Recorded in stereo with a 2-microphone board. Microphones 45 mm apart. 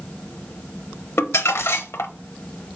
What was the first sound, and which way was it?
Crumpling, 85° left.